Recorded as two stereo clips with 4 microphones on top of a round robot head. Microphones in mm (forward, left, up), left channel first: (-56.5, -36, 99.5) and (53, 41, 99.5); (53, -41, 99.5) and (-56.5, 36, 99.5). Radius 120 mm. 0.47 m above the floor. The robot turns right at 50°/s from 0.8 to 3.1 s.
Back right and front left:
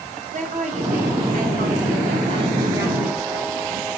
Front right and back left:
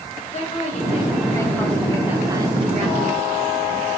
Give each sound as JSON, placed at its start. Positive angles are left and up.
{"t": 0.3, "sound": "a woman speaking", "azimuth_deg": 5, "distance_m": 4.0}